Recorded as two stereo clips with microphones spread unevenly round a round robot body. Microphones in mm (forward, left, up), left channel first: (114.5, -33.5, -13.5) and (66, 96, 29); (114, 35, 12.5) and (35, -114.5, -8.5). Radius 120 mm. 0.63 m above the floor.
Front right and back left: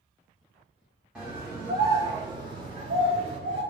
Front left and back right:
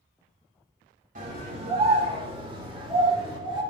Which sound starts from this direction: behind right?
A scream, at 1.1 s.